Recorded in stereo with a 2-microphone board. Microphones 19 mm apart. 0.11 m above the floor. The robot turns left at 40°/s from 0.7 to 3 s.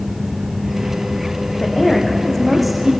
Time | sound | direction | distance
1.6 | a woman speaking | 40° left | 6 m